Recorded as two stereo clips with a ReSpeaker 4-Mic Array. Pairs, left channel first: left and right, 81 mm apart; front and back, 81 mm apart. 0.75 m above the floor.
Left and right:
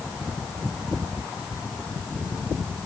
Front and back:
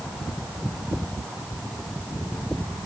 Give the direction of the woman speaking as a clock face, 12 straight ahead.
I don't hear a woman speaking.